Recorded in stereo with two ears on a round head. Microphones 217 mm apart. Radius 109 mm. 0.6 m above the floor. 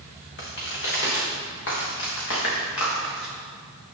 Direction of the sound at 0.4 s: 45° left (ahead or behind).